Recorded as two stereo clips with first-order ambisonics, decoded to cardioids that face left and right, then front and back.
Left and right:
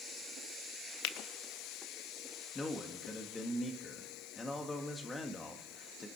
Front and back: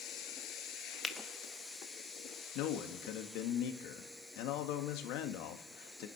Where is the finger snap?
80° left, 0.8 m.